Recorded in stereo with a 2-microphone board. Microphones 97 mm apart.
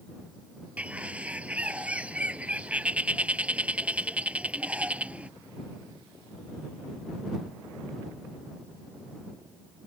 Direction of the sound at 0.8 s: 15° right (ahead or behind).